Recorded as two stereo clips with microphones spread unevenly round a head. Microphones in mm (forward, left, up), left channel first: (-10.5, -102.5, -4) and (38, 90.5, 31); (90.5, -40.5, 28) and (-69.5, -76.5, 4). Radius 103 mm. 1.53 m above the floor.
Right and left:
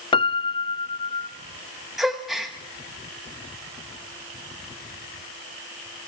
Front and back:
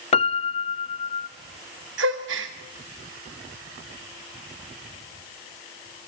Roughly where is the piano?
Ahead right.